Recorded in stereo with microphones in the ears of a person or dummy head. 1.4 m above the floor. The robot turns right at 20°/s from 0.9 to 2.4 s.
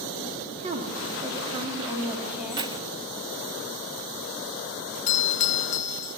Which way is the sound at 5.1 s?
35° left (ahead or behind).